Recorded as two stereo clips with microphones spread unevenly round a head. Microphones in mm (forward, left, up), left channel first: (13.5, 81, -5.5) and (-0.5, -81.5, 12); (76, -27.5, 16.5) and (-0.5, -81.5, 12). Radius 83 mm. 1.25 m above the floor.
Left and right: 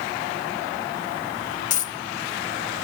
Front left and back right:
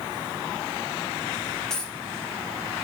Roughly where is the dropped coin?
Behind left.